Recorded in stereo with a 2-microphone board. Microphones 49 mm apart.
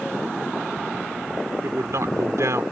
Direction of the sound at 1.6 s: 75° right (ahead or behind).